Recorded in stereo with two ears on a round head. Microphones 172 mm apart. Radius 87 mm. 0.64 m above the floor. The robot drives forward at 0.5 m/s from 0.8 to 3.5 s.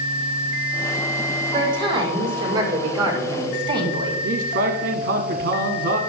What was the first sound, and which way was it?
A woman speaking, 25° right (ahead or behind).